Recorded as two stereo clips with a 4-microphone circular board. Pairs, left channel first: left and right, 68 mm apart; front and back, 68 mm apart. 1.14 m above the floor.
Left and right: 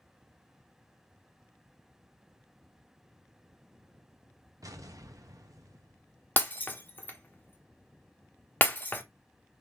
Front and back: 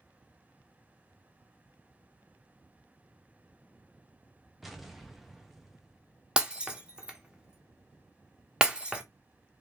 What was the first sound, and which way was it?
An explosion, 90° right.